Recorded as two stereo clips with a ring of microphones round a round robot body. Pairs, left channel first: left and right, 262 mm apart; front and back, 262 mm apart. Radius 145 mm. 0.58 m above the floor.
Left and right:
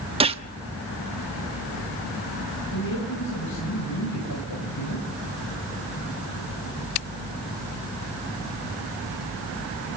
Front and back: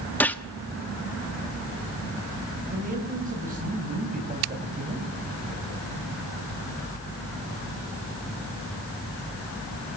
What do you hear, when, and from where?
0.2 s a gunshot: 75° right, 1.2 m
2.7 s a man speaking: 120° left, 5 m